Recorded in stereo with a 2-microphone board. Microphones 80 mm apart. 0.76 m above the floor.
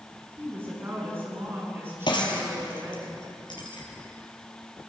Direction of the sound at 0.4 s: 30° right (ahead or behind).